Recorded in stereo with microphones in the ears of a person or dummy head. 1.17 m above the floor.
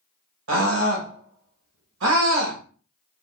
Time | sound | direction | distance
0.5 | a scream | 80° right | 1.3 m